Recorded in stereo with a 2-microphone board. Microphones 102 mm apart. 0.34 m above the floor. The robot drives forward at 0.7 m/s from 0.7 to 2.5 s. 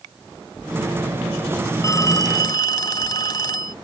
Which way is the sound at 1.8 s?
35° left (ahead or behind).